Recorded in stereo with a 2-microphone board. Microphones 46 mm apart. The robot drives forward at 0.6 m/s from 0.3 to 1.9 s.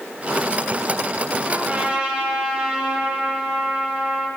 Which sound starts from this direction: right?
A trumpet, at 1.4 s.